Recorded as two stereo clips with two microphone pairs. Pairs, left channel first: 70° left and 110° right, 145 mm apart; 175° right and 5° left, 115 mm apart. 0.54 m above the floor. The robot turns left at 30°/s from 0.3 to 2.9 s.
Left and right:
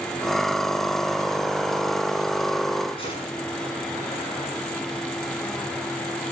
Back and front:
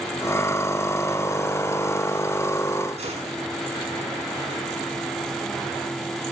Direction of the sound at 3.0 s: 20° left.